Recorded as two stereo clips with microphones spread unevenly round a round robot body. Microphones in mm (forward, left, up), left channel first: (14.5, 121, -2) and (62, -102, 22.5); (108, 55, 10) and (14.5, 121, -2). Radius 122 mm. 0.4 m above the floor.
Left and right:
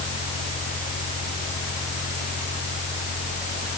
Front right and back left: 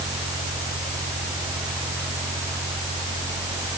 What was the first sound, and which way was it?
Only background noise.